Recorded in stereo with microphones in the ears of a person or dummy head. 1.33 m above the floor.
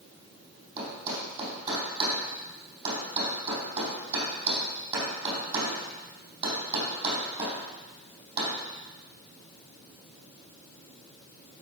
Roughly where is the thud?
Right.